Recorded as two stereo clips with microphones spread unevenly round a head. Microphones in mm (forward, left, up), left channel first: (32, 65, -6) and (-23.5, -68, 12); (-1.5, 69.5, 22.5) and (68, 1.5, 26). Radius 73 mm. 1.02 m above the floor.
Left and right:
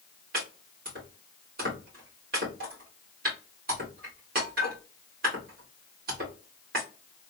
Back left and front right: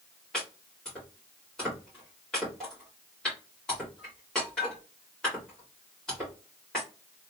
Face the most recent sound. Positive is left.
turn(degrees=-140)